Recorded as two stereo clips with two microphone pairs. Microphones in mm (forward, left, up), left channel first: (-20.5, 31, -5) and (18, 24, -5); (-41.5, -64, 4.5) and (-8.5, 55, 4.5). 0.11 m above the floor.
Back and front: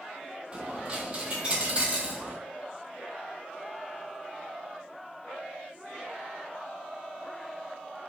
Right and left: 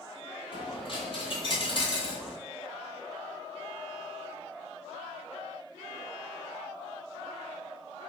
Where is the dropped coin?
70° right, 0.8 m.